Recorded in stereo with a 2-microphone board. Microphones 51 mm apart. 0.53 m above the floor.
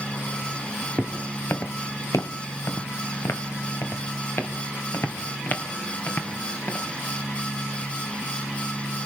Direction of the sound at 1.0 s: 25° left (ahead or behind).